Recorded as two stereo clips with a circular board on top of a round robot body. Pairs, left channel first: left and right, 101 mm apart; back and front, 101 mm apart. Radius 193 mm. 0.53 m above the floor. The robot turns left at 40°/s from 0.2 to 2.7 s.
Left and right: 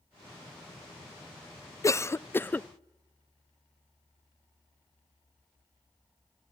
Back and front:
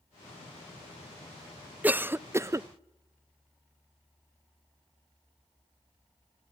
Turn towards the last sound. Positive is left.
turn(degrees=25)